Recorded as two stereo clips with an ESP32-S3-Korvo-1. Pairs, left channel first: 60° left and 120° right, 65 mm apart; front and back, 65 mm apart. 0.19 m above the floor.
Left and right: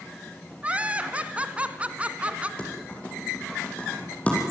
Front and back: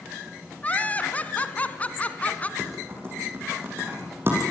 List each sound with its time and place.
0.6 s laughter: 55° right, 2.0 m
2.6 s typing on a keyboard: 130° left, 7 m